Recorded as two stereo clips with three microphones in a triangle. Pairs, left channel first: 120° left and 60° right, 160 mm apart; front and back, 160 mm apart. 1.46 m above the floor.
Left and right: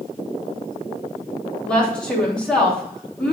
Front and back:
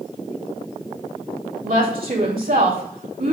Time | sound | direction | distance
1.6 | a woman speaking | 155° right | 3.5 m